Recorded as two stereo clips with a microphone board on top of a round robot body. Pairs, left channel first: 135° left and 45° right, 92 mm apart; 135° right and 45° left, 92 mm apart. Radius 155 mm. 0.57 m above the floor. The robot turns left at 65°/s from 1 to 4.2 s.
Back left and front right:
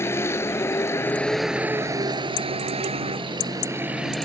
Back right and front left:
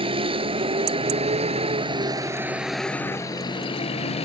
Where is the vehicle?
70° left; by 4.2 s 135° right.